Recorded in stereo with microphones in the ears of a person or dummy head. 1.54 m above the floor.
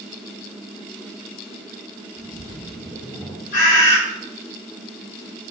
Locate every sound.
2.2 s a splash: 10° left (ahead or behind), 1.8 m
3.5 s a bird: 55° left (ahead or behind), 5 m